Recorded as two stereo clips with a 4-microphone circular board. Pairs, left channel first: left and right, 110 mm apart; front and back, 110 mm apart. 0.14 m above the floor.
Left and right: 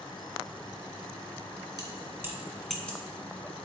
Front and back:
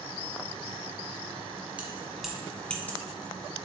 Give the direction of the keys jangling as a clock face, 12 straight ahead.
4 o'clock.